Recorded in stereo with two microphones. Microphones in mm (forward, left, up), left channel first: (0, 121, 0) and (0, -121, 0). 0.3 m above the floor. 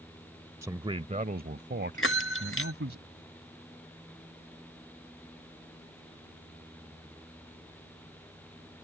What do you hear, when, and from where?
0.6 s a man speaking: 10° right (ahead or behind); by 3.0 s 60° right (ahead or behind)
2.0 s a bell: 60° left (ahead or behind)